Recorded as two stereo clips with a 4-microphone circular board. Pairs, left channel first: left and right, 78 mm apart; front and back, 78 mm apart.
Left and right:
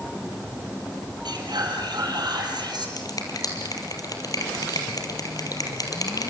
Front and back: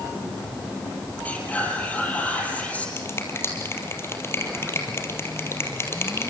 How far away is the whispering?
About 5.5 m.